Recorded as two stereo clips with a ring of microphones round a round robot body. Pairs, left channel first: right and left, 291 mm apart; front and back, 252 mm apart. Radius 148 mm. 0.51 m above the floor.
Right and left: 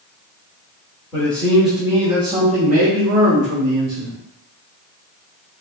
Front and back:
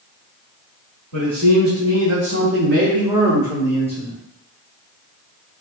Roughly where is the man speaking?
Behind.